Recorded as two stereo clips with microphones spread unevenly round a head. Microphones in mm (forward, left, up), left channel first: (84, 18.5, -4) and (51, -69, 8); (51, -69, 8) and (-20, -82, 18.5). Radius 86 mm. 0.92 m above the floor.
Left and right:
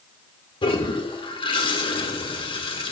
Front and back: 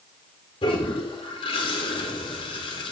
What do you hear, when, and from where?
0.6 s a toilet flushing: 40° left, 1.7 m